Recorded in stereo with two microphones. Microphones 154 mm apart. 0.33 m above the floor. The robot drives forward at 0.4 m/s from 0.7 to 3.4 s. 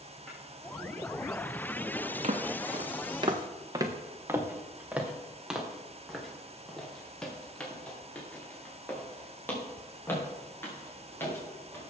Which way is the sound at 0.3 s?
Centre (ahead or behind).